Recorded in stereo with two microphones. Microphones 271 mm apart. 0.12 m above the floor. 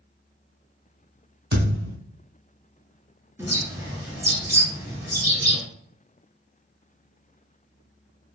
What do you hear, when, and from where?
1.5 s a thud: 35° right (ahead or behind), 1.8 m
3.4 s a bird: 10° right (ahead or behind), 1.4 m